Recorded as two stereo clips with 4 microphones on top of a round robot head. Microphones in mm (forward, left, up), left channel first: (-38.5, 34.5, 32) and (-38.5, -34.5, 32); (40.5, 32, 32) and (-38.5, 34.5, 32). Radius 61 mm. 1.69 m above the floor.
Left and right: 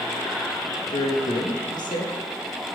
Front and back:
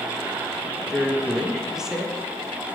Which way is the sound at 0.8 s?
95° left.